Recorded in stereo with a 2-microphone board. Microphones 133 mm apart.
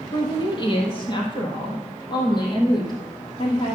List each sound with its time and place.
0.1 s a woman speaking: 35° left (ahead or behind), 3 m